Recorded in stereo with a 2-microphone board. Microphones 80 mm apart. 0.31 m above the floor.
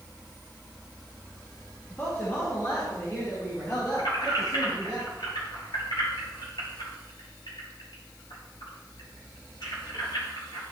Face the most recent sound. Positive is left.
turn(degrees=80)